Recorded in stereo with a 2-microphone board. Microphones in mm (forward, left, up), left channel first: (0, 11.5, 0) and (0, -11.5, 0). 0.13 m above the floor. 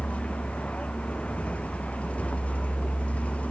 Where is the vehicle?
80° left.